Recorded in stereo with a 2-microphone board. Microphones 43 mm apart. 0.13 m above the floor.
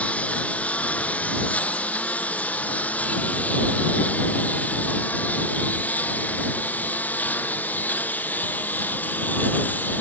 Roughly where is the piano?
No piano in this recording.